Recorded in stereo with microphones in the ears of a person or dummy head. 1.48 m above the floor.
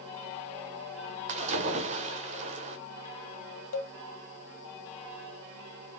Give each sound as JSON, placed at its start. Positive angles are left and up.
{"t": 1.3, "sound": "a splash", "side_deg": -45, "distance_m": 0.6}
{"t": 3.7, "sound": "a cowbell", "side_deg": 75, "distance_m": 0.9}